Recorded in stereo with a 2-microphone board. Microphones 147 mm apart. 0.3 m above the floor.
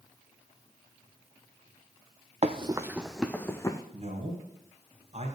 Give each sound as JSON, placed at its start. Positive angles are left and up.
{"t": 2.4, "sound": "running footsteps", "side_deg": -45, "distance_m": 0.6}
{"t": 3.9, "sound": "a man speaking", "side_deg": -50, "distance_m": 2.0}